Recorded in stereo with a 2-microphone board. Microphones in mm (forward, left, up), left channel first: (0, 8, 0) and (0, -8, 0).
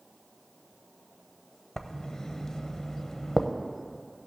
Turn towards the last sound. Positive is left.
turn(degrees=50)  # may be behind; listen again after turning